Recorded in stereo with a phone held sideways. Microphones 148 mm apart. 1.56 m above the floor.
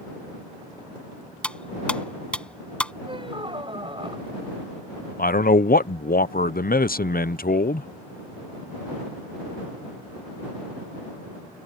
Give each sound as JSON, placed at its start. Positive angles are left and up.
{"t": 1.4, "sound": "cutlery clinking", "side_deg": 5}
{"t": 3.0, "sound": "a squeak", "side_deg": -35}
{"t": 5.2, "sound": "a man speaking", "side_deg": 80}